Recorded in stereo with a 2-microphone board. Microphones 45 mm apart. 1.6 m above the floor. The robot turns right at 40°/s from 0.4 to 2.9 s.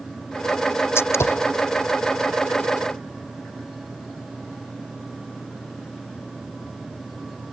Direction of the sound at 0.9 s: 70° left (ahead or behind).